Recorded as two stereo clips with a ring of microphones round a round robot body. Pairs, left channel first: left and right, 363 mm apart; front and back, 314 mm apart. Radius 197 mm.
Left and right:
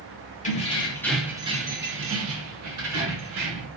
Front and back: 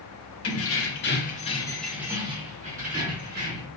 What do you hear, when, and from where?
0.4 s keys jangling: 25° left, 1.0 m; by 3.7 s 125° right, 1.7 m